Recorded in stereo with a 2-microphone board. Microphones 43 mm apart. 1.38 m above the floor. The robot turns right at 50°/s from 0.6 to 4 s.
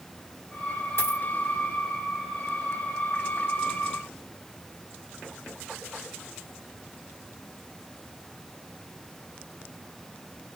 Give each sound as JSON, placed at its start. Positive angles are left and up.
{"t": 1.0, "sound": "a dropped coin", "side_deg": 65, "distance_m": 2.0}